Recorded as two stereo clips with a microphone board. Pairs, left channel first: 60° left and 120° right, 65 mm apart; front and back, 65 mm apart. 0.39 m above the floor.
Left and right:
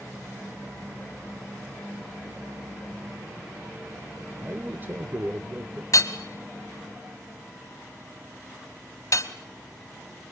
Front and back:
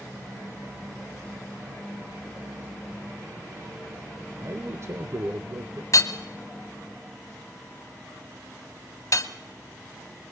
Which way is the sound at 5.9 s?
35° left.